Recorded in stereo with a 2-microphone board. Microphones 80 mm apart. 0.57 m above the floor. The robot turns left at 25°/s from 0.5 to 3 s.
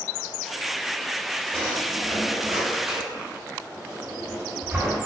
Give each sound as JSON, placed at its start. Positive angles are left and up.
{"t": 1.5, "sound": "a drawer", "side_deg": 20, "distance_m": 1.9}